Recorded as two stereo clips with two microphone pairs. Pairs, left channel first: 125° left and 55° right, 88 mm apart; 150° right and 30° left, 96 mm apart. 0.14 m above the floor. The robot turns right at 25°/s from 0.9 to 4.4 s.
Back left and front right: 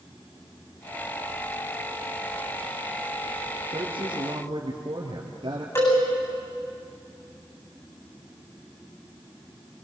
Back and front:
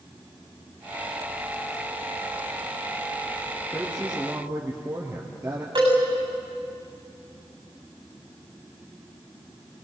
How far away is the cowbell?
About 8 m.